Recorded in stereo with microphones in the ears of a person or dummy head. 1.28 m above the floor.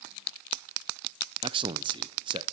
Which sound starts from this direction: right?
A man speaking, at 1.4 s.